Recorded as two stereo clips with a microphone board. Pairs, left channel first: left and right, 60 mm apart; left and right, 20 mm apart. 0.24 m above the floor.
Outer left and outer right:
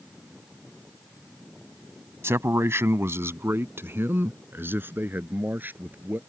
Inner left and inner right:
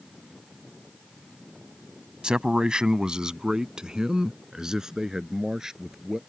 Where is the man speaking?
45° right (ahead or behind); by 6.2 s 30° right (ahead or behind).